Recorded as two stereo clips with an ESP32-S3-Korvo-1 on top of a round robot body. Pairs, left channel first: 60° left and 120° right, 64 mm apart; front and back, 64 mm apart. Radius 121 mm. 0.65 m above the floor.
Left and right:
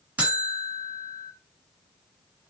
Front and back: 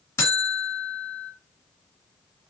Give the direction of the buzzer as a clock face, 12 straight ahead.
2 o'clock.